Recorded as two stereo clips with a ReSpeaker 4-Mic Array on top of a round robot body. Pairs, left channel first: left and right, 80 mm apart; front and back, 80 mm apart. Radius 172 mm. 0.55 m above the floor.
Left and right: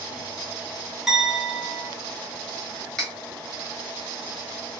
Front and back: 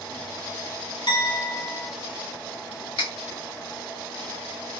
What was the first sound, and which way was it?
A clink, 5° right.